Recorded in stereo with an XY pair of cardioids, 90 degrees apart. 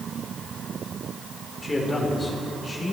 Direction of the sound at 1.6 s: 20° left.